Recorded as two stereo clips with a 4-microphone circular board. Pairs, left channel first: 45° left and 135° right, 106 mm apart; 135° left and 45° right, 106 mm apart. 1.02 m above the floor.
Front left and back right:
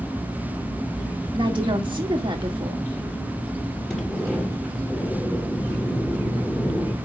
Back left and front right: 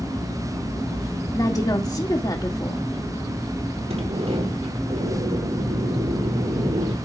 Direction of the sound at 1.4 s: 175° right.